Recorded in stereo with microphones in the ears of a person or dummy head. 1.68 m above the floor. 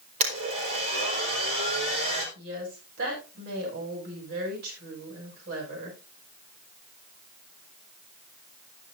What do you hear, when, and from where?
0.2 s a blender: 45° right (ahead or behind), 4.5 m
2.4 s a woman speaking: 60° right (ahead or behind), 8 m